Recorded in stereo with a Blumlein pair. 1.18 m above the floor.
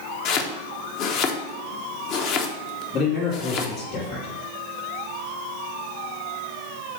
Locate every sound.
0.2 s chopping: 40° left, 0.8 m
2.9 s a man speaking: 30° left, 2.5 m